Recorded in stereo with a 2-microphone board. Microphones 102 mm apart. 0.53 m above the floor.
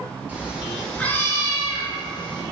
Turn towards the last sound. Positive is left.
turn(degrees=50)  # may be behind; listen again after turning